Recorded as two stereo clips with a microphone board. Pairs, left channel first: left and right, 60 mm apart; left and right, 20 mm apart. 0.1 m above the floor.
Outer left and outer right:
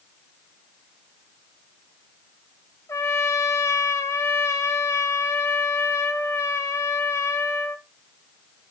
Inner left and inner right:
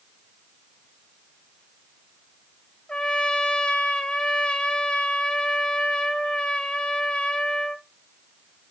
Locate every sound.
2.9 s a trumpet: 50° left (ahead or behind), 0.6 m